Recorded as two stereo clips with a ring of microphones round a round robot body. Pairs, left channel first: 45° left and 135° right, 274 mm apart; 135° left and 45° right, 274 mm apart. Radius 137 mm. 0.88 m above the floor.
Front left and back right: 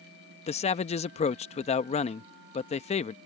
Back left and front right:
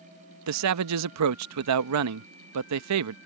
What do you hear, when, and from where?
0.5 s a man speaking: 20° right